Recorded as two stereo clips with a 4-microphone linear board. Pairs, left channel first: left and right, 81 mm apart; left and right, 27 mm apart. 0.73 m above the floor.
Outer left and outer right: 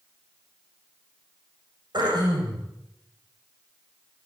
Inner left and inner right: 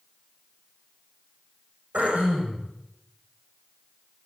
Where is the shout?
No shout in this recording.